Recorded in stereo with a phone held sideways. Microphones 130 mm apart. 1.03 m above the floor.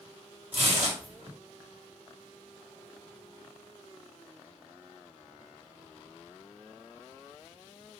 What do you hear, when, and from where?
0.5 s tearing paper: 50° right (ahead or behind), 1.6 m